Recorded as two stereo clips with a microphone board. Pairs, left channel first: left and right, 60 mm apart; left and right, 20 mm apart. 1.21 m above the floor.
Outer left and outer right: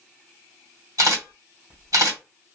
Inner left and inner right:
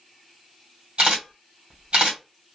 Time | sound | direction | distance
1.0 | a camera shutter | 65° right (ahead or behind) | 1.5 m